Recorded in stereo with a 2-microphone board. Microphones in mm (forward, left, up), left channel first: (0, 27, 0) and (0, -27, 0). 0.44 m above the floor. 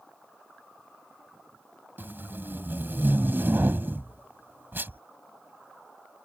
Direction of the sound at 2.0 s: 40° right (ahead or behind).